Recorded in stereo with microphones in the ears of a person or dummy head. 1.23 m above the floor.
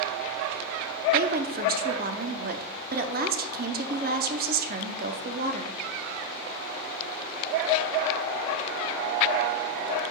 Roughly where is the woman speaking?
Right.